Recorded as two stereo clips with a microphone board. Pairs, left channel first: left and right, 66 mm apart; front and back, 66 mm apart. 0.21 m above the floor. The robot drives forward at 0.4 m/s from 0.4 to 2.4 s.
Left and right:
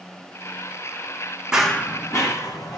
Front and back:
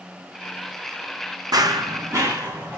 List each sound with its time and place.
1.5 s running footsteps: 170° right, 0.6 m; by 2.8 s 120° left, 2.0 m